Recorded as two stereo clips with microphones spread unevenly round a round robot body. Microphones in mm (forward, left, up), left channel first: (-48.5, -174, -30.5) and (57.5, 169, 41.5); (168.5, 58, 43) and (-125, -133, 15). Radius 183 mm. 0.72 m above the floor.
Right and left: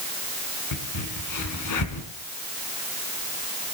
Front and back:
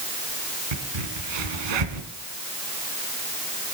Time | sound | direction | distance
0.7 | a crack | 150° right | 2.5 m